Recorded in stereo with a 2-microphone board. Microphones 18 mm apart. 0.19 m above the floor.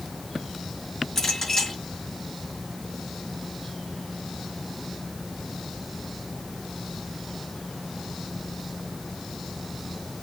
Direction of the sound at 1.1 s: 25° left (ahead or behind).